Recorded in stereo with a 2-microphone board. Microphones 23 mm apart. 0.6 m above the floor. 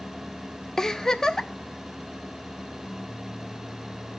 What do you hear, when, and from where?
0.8 s a giggle: 20° left (ahead or behind), 0.7 m